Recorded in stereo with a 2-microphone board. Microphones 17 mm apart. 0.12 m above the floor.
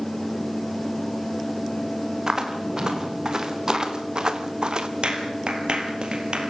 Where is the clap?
65° right (ahead or behind), 3 m.